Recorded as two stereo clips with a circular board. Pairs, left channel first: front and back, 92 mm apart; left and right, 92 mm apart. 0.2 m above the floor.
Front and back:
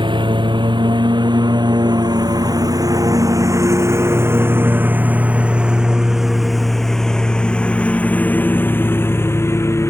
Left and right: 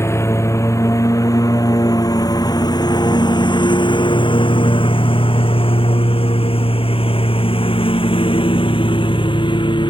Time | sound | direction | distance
0.0 | a lawn mower | 150° left | ?